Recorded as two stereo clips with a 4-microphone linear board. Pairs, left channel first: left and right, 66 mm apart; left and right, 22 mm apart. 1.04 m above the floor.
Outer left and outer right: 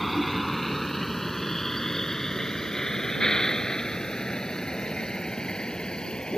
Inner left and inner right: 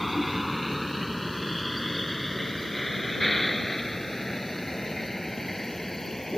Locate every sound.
0.0 s a vehicle: centre (ahead or behind); by 6.4 s 10° left (ahead or behind)